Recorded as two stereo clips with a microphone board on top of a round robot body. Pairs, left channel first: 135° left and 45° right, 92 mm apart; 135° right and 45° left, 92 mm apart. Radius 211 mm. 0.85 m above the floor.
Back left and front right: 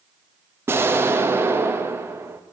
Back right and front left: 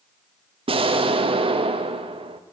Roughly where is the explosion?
Ahead.